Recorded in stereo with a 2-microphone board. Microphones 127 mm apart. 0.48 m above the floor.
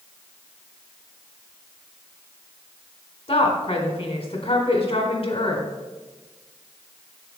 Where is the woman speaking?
50° left (ahead or behind), 1.6 m.